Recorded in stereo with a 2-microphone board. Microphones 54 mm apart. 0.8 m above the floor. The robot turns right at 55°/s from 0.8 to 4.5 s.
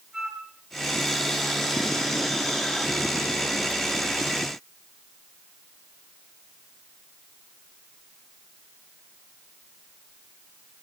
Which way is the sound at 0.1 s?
5° right (ahead or behind).